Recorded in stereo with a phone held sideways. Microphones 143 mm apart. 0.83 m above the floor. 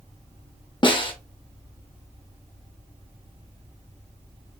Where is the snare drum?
35° left (ahead or behind), 1.1 m.